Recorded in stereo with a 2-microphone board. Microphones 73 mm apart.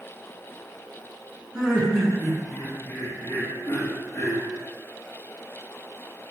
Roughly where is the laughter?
Centre.